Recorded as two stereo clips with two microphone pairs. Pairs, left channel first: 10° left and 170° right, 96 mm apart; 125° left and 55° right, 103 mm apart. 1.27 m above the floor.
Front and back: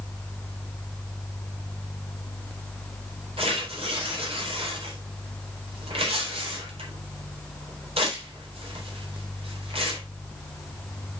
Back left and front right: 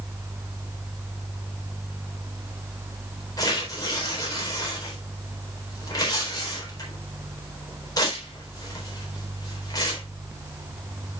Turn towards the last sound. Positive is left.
turn(degrees=175)